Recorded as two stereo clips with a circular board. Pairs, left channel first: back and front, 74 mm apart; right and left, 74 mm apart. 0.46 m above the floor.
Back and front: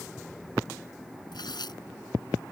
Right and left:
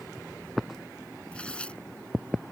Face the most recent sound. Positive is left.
turn(degrees=-165)